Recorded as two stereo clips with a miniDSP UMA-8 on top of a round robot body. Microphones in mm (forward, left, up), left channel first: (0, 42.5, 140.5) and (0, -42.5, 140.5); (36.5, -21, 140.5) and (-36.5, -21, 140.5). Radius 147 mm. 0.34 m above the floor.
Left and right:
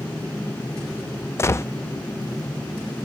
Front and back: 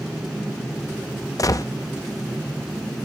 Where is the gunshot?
35° left, 0.7 m.